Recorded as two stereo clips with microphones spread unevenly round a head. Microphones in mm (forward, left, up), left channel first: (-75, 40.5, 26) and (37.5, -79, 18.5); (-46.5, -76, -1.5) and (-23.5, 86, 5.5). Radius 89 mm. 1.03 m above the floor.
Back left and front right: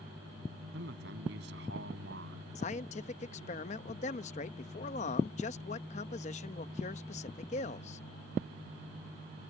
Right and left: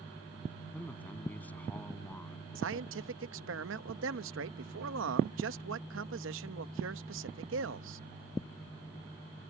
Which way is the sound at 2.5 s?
80° left.